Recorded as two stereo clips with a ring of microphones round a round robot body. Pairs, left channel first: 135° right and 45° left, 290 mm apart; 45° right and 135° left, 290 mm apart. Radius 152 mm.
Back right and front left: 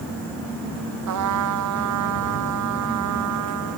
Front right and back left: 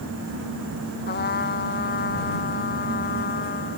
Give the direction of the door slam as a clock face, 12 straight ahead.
No door slam in this recording.